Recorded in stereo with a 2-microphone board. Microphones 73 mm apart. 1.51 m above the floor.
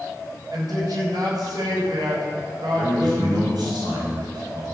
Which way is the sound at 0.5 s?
60° right (ahead or behind).